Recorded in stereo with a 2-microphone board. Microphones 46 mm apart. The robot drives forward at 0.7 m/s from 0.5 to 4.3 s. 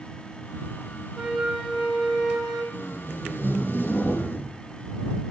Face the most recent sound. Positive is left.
turn(degrees=45)  # may be behind; listen again after turning